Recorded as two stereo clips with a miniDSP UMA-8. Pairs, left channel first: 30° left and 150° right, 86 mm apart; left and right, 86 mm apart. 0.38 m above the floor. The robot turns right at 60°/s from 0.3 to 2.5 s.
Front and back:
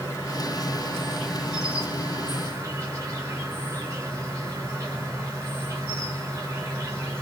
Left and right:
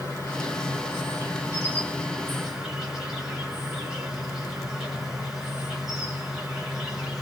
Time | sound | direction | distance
0.0 | an insect | 55° left | 1.5 m